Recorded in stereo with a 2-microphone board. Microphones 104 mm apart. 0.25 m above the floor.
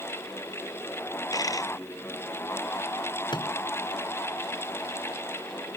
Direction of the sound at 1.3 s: 35° left (ahead or behind).